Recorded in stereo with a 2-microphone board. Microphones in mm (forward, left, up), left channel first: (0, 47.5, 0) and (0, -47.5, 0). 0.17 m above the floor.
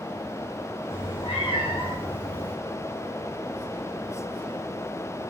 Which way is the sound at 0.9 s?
70° left (ahead or behind).